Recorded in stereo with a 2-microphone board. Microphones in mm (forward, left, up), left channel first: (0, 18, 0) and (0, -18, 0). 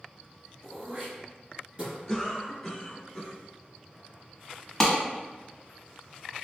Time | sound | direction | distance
0.6 | throat clearing | 30° right (ahead or behind) | 1.2 m
2.1 | a cough | 10° left (ahead or behind) | 1.0 m
4.8 | a clap | 10° left (ahead or behind) | 1.0 m